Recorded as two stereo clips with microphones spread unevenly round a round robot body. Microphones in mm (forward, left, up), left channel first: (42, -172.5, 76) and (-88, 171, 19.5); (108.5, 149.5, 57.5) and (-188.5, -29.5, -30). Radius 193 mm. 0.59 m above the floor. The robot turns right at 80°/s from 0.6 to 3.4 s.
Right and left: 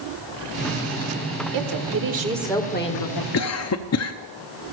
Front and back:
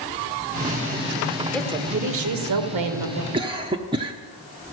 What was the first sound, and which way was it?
A woman speaking, 125° left.